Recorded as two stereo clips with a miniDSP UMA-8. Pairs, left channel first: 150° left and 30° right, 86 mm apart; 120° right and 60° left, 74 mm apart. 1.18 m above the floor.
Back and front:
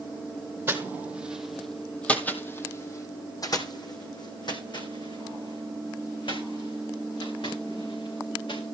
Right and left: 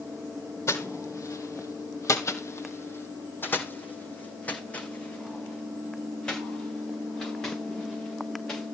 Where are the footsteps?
85° right, 1.8 m; by 8.7 s 160° left, 6 m.